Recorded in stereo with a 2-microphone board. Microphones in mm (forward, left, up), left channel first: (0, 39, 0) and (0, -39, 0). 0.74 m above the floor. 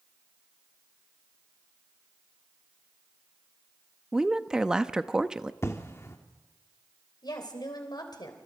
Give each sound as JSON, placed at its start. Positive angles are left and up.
{"t": 4.1, "sound": "a woman speaking", "side_deg": -10, "distance_m": 0.7}
{"t": 5.6, "sound": "an explosion", "side_deg": 35, "distance_m": 1.7}
{"t": 7.2, "sound": "a woman speaking", "side_deg": 65, "distance_m": 3.5}